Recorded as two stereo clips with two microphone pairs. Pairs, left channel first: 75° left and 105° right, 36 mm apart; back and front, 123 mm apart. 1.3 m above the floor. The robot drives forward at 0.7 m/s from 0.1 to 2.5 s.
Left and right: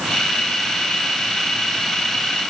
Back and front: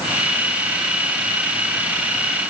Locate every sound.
Only background noise.